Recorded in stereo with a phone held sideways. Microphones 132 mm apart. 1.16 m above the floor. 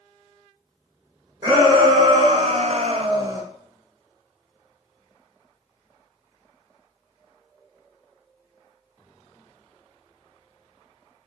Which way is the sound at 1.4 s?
35° right (ahead or behind).